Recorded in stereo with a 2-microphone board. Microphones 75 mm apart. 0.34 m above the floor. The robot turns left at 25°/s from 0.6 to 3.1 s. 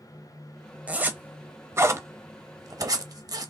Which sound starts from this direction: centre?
A zipper, at 0.9 s.